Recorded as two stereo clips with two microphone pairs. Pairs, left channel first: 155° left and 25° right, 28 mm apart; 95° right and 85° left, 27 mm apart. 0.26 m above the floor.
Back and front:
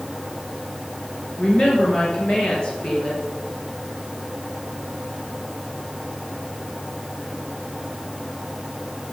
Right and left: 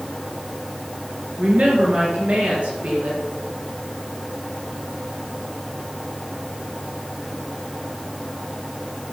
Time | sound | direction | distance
1.4 | a woman speaking | 105° left | 4 m